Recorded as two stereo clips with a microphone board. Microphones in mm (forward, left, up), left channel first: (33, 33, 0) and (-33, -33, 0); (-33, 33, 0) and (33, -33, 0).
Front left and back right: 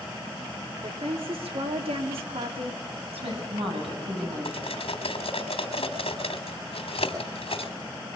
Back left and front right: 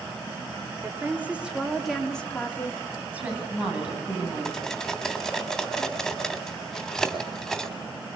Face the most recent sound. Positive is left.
turn(degrees=50)